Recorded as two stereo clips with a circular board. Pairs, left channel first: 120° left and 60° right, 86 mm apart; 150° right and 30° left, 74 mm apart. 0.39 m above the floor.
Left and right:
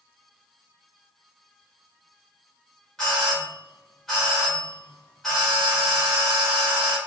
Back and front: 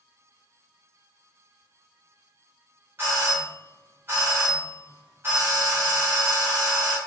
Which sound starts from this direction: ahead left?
A doorbell, at 3.0 s.